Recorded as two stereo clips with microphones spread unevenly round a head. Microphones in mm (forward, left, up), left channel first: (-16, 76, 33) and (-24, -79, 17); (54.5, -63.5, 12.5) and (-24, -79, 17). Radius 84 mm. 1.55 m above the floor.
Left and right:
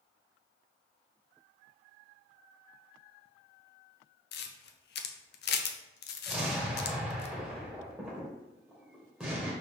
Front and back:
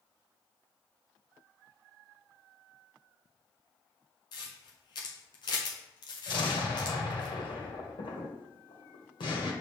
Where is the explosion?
5° right, 1.6 m.